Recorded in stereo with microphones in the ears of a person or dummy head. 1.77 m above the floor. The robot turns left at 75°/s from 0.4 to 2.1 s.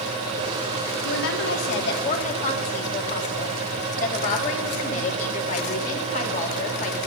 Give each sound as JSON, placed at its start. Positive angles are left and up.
{"t": 1.0, "sound": "a woman speaking", "azimuth_deg": 125, "distance_m": 2.5}